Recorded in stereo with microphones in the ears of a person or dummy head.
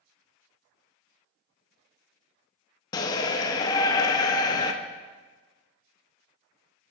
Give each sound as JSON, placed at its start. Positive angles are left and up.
{"t": 2.9, "sound": "a shout", "side_deg": 15, "distance_m": 0.7}